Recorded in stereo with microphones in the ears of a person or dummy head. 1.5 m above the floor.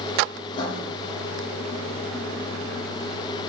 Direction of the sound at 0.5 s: 30° left (ahead or behind).